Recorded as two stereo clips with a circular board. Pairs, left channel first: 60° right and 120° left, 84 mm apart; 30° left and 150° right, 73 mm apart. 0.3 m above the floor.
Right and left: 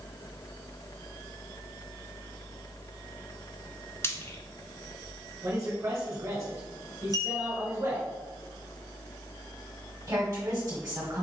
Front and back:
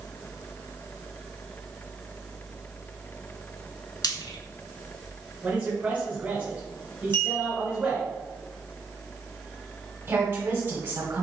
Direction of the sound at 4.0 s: Straight ahead.